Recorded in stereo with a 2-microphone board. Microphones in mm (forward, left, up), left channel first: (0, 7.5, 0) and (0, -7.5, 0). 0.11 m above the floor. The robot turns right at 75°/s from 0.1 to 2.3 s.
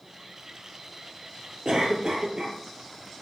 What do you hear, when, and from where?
1.6 s a cough: 115° right, 2 m; by 2.6 s 65° right, 2 m